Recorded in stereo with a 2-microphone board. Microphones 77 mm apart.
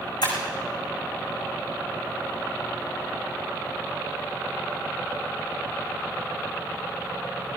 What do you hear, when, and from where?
0.2 s breaking glass: 70° left (ahead or behind), 7.5 m